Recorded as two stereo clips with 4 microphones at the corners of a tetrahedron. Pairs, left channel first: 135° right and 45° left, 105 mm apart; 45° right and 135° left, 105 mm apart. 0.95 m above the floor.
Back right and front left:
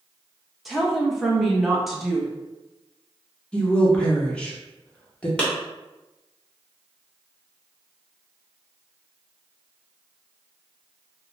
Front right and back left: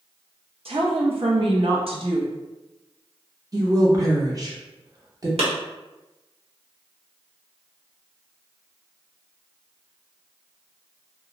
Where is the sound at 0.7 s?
130° left, 0.7 m.